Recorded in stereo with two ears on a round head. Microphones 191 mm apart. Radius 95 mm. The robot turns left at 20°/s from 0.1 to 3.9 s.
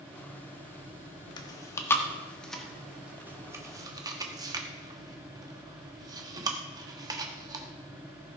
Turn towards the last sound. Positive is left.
turn(degrees=-20)  # may be behind; listen again after turning